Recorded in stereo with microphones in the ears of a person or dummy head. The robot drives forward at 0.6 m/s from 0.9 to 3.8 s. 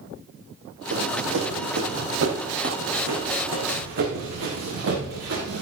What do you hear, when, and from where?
0.9 s running footsteps: 65° right (ahead or behind), 3 m; by 5.6 s 70° right (ahead or behind), 6 m